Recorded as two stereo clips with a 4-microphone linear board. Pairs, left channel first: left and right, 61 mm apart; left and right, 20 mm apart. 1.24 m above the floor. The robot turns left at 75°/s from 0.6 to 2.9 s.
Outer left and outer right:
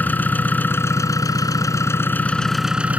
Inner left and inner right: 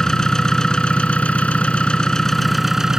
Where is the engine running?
150° left; by 3.0 s 20° right.